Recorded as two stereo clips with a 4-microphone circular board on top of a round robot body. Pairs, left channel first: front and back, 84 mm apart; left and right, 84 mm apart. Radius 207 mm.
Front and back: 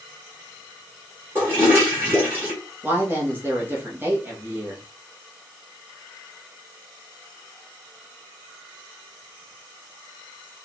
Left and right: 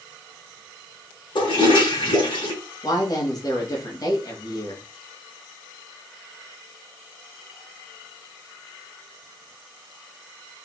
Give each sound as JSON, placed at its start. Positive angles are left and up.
{"t": 1.4, "sound": "a toilet flushing", "azimuth_deg": 115, "distance_m": 3.0}
{"t": 2.8, "sound": "a woman speaking", "azimuth_deg": 120, "distance_m": 1.8}